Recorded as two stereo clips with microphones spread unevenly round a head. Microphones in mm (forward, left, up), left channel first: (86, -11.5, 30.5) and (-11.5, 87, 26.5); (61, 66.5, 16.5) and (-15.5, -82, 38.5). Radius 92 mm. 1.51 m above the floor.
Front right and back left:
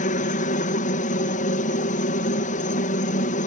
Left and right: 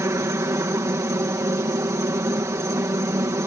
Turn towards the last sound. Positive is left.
turn(degrees=-45)